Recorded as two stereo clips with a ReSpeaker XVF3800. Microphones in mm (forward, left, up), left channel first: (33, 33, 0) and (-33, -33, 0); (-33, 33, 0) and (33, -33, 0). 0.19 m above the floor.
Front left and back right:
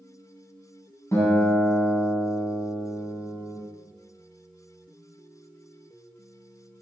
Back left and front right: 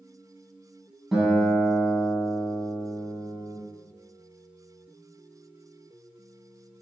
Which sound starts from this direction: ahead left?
A guitar, at 1.1 s.